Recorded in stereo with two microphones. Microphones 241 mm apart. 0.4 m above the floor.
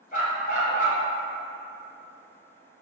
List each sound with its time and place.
0.1 s a dog barking: 35° left (ahead or behind), 1.5 m